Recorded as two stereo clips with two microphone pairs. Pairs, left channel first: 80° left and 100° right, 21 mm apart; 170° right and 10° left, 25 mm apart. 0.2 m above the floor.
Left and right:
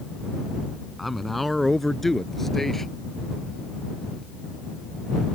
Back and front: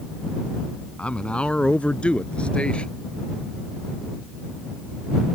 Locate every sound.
1.0 s a man speaking: 165° left; by 2.9 s 150° left